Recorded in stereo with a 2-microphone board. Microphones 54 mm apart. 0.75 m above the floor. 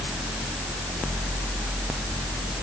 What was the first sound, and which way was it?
Only background noise.